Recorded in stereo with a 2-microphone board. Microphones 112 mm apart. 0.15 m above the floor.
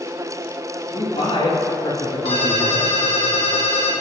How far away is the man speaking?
About 3.5 m.